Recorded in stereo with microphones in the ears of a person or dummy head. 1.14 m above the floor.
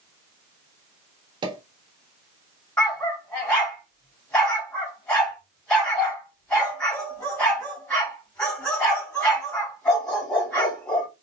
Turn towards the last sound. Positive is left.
turn(degrees=10)  # may be behind; listen again after turning